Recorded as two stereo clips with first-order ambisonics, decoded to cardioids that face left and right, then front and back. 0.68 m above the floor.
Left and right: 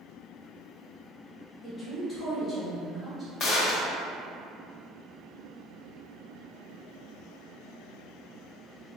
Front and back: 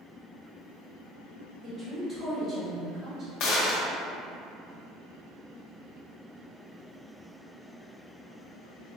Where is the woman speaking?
135° left, 0.9 m.